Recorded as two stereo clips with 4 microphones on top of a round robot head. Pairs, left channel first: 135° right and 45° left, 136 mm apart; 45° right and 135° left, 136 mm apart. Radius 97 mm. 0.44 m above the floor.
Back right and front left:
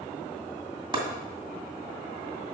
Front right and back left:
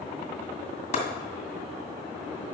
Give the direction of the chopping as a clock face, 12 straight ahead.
12 o'clock.